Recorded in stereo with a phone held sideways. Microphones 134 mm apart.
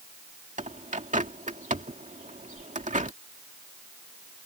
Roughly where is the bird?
Right.